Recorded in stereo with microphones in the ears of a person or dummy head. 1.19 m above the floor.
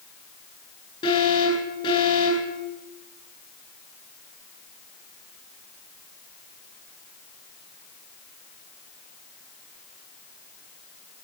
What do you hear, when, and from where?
1.0 s an alarm: 25° left (ahead or behind), 9 m